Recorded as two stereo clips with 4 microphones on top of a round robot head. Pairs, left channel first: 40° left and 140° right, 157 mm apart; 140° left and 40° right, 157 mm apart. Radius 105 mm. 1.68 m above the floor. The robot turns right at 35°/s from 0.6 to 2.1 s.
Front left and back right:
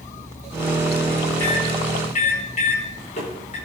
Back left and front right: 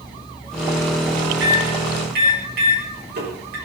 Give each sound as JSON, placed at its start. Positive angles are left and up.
{"t": 1.4, "sound": "a microwave", "azimuth_deg": -35, "distance_m": 6.0}